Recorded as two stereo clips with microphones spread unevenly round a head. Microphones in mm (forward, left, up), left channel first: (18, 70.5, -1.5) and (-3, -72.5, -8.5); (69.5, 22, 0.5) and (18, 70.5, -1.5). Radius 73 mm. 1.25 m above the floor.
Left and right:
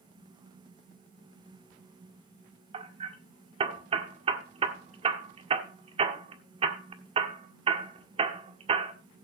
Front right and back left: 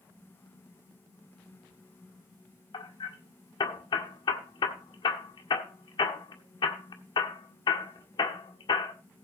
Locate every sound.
2.7 s hammering: 45° right, 1.7 m